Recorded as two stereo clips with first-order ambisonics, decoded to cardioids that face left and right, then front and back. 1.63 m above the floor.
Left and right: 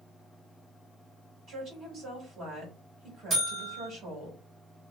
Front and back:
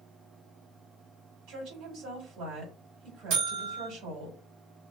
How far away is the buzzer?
About 2.0 m.